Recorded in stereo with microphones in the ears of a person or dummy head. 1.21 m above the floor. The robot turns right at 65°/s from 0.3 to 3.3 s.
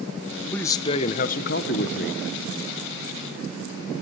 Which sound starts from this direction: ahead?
A man speaking, at 0.5 s.